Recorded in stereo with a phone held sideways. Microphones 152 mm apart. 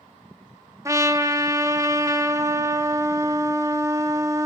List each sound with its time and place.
0.8 s a trumpet: 20° right (ahead or behind), 0.9 m